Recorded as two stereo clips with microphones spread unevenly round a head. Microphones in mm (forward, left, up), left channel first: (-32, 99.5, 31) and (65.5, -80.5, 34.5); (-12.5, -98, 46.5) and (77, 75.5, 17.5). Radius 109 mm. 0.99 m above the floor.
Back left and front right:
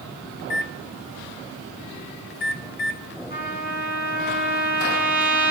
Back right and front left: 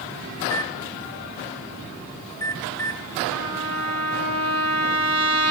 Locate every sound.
0.4 s a microwave: 165° left, 0.6 m
3.3 s a trumpet: 70° left, 5.5 m